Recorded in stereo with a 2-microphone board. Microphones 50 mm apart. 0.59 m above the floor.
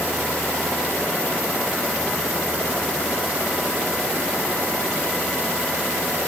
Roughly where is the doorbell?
I don't hear a doorbell.